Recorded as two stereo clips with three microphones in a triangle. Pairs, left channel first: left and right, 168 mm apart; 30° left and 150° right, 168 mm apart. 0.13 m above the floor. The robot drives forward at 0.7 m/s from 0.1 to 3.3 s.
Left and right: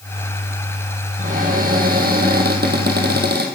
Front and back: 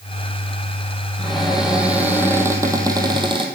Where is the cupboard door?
60° right, 3 m; by 3.5 s 90° right, 2.5 m.